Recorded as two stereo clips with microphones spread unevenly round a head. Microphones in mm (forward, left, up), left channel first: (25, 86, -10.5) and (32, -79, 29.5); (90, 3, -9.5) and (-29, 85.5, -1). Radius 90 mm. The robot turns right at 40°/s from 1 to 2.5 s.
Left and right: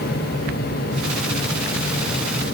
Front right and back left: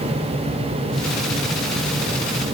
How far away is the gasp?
No gasp in this recording.